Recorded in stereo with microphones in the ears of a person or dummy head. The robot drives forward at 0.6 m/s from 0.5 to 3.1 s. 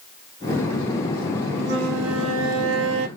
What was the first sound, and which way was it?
A flute, 80° right.